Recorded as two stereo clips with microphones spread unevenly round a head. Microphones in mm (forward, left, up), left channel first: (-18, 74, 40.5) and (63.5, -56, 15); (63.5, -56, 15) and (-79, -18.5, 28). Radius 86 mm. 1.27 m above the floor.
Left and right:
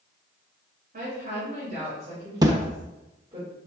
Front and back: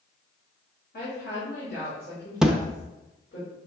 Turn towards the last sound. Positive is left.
turn(degrees=-125)